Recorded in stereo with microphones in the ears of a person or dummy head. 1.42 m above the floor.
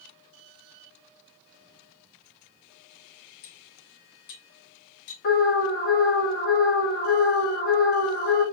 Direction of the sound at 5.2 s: 55° left (ahead or behind).